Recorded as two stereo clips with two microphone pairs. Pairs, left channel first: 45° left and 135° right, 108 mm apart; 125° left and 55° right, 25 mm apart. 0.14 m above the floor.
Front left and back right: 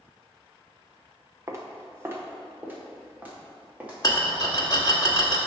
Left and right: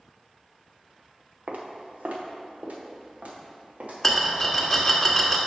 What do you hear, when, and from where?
1.5 s footsteps: 75° right, 1.3 m; by 4.6 s 55° right, 3 m
4.0 s a rattle: 40° left, 1.1 m